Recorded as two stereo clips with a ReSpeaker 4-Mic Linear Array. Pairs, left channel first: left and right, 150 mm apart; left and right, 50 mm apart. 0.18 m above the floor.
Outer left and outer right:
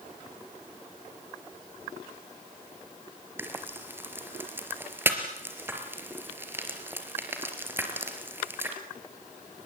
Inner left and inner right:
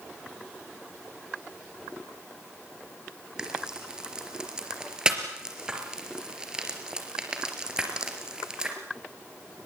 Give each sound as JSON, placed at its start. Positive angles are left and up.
{"t": 3.4, "sound": "frying", "side_deg": -15, "distance_m": 3.5}